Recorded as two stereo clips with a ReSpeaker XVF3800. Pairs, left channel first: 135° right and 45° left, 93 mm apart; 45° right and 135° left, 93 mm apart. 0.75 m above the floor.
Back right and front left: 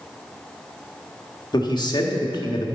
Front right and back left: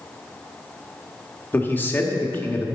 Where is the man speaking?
110° right, 1.3 m.